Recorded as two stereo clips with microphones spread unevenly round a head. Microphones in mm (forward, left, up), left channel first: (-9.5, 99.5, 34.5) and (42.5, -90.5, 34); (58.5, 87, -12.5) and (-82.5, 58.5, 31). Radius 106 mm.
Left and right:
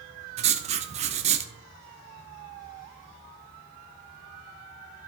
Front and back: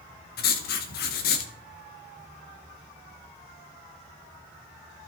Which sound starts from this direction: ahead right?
Writing, at 0.4 s.